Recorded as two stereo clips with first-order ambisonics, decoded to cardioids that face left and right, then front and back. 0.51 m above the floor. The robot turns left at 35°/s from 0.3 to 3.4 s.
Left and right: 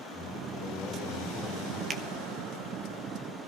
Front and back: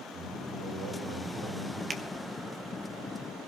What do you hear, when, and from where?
0.1 s a man speaking: 165° right, 4 m; by 1.8 s 145° left, 4 m
1.9 s a finger snap: 125° right, 0.8 m; by 2.0 s 130° right, 0.8 m